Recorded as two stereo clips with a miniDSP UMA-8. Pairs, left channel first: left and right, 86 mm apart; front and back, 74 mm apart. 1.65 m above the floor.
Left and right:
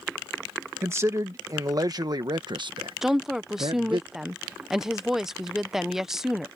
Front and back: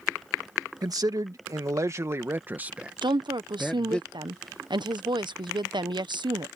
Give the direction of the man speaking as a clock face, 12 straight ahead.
5 o'clock.